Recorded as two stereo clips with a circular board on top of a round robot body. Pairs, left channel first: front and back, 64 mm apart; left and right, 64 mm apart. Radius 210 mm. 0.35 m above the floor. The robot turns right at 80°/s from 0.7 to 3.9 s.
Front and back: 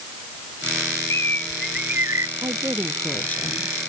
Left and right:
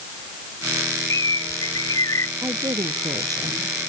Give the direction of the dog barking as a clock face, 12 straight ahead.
I don't hear a dog barking.